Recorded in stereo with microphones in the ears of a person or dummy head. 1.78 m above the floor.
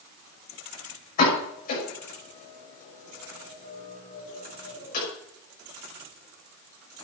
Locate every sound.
1.2 s a pop: 50° left (ahead or behind), 6.5 m